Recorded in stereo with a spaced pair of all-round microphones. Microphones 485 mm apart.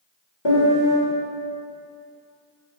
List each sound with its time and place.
0.5 s a piano: 65° left (ahead or behind), 1.5 m